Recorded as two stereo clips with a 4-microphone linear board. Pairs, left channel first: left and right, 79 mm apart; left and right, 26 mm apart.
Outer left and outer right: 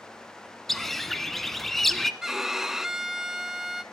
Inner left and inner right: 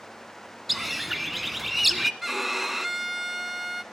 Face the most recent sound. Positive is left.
turn(degrees=-5)  # may be behind; listen again after turning